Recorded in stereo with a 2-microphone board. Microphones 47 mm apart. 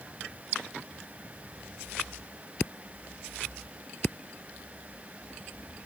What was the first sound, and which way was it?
Only background noise.